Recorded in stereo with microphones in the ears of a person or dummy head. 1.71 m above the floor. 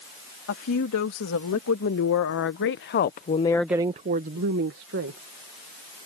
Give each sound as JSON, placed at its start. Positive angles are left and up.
{"t": 0.5, "sound": "a woman speaking", "side_deg": 70}